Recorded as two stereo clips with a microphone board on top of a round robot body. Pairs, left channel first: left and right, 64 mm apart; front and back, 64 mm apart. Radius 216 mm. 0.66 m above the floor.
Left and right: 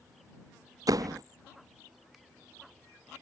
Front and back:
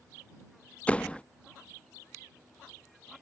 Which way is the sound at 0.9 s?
75° right.